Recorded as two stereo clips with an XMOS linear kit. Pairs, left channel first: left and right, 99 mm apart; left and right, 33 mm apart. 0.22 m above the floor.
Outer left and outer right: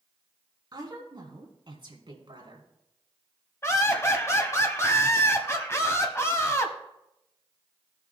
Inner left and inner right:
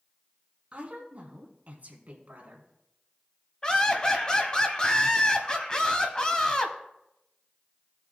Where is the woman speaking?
45° right (ahead or behind), 2.5 m; by 2.7 s 55° right (ahead or behind), 2 m.